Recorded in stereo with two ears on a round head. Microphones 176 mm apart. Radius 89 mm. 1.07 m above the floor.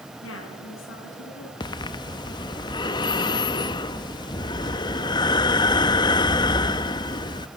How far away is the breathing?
About 0.7 m.